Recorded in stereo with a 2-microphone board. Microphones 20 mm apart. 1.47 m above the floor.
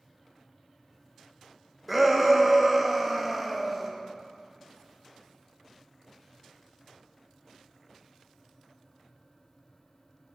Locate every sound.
1.9 s a shout: 5° right (ahead or behind), 1.4 m